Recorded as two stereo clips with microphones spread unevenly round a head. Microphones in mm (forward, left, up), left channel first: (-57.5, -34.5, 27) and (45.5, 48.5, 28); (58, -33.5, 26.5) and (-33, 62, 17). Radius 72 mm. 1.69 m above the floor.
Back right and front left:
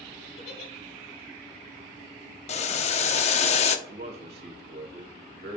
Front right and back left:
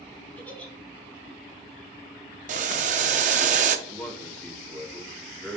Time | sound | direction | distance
0.4 | a giggle | 125° right | 1.8 m
2.5 | boiling | 175° left | 0.6 m
3.9 | a man speaking | 35° left | 2.0 m